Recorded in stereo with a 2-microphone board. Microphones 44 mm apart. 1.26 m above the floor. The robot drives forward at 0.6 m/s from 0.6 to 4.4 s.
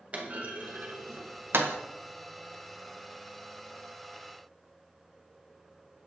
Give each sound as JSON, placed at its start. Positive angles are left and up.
{"t": 0.1, "sound": "a clunk", "side_deg": -35, "distance_m": 1.0}